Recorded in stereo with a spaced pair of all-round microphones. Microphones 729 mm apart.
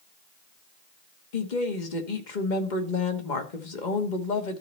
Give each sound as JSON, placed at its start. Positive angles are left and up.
{"t": 1.3, "sound": "a woman speaking", "side_deg": 85, "distance_m": 1.4}